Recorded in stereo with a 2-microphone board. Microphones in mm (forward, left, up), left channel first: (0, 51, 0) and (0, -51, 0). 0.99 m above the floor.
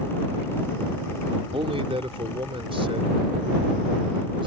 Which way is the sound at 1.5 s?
70° right (ahead or behind).